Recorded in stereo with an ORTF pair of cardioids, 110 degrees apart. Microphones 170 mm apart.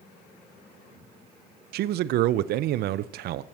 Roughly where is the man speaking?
Right.